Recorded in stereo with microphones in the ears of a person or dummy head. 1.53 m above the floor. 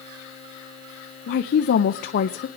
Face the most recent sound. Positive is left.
turn(degrees=55)  # may be behind; listen again after turning